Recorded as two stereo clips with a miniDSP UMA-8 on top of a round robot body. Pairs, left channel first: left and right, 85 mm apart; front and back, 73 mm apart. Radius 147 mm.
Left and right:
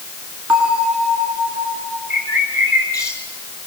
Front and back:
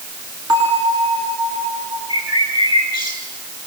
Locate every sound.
0.5 s a bell: 160° right, 7.5 m
2.1 s a bird: 150° left, 9 m